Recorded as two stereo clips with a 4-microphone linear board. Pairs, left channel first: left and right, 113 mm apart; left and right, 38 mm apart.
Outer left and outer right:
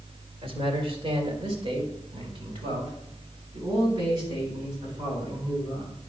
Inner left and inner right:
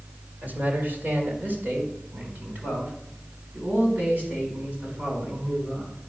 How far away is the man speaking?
About 2 m.